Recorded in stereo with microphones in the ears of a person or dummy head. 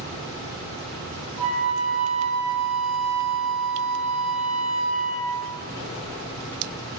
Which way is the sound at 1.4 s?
40° left (ahead or behind).